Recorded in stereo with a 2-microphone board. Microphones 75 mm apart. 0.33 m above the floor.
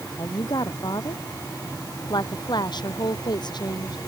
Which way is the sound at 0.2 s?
65° left (ahead or behind).